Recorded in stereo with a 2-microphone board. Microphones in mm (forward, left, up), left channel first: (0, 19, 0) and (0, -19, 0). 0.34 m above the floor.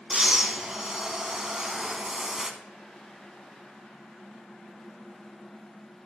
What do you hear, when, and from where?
0.1 s breathing: 15° right (ahead or behind), 1.0 m